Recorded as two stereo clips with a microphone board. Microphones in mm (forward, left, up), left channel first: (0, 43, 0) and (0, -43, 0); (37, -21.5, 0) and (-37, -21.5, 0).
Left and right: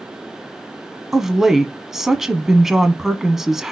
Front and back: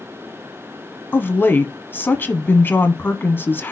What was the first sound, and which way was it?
A woman speaking, 10° right.